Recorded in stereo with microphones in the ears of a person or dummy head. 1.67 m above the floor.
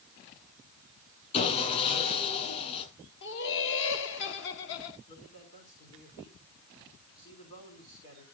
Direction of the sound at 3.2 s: 65° left (ahead or behind).